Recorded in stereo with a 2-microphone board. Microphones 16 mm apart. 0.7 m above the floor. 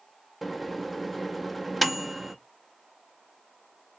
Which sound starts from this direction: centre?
A microwave, at 0.4 s.